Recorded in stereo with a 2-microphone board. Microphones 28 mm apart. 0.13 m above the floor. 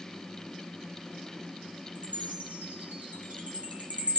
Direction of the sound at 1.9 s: 65° right (ahead or behind).